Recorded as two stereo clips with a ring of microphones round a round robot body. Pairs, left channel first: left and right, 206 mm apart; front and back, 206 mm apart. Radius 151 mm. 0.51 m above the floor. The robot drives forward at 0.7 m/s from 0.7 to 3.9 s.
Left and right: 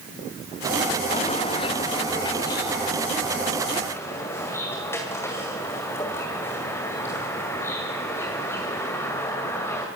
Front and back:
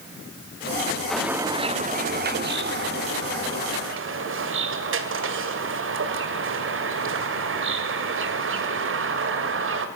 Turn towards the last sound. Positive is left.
turn(degrees=170)